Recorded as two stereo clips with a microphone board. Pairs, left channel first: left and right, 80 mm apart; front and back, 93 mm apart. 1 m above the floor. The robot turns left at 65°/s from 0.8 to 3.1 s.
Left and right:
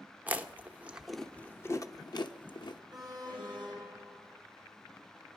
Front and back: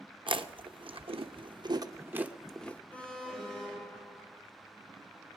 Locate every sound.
0.3 s chewing: 160° right, 0.9 m; by 2.8 s 70° left, 0.9 m
2.9 s an alarm: 70° right, 5 m; by 4.3 s 80° right, 5 m